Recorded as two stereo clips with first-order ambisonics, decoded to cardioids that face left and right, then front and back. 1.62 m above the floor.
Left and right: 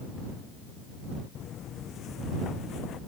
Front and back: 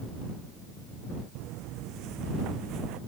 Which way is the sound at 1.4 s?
145° left.